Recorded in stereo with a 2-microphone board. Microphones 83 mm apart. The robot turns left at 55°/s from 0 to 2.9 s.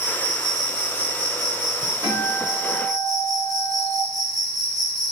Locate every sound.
0.0 s an insect: 30° left, 1.6 m; by 5.1 s 130° right, 1.6 m
2.0 s a guitar: 120° right, 1.6 m; by 4.0 s 165° right, 1.6 m